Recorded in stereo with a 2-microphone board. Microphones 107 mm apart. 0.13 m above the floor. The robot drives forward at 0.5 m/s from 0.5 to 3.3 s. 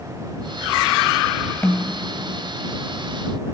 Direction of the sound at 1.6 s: 15° left (ahead or behind).